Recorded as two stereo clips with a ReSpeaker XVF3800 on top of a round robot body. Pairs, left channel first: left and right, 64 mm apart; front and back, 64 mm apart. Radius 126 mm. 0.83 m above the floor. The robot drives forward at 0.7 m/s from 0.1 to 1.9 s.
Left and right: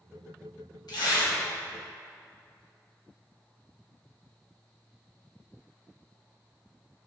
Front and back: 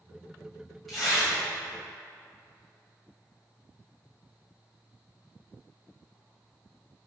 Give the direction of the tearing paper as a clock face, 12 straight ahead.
9 o'clock.